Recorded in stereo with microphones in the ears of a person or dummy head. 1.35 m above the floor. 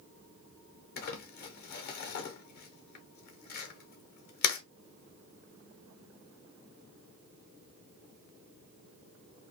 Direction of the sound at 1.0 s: 50° left (ahead or behind).